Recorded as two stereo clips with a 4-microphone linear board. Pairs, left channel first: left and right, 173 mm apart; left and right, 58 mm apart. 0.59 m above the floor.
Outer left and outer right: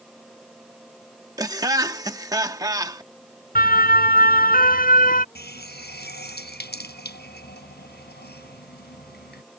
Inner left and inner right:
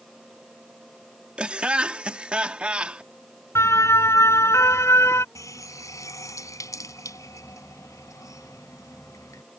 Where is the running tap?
75° left (ahead or behind).